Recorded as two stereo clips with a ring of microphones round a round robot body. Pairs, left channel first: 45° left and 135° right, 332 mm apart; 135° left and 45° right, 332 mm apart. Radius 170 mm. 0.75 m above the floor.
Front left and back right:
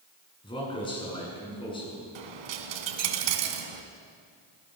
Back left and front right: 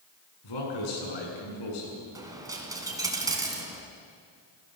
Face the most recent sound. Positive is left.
turn(degrees=-125)